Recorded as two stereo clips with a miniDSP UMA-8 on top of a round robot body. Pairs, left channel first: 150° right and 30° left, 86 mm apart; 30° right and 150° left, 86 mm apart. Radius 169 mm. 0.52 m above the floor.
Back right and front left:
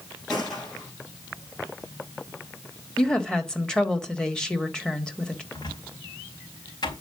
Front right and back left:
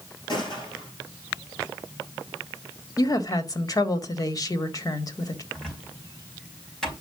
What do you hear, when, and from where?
0.3 s a gunshot: 70° right, 8 m
3.0 s a woman speaking: 70° right, 2 m
5.5 s a cupboard door: 115° right, 4.5 m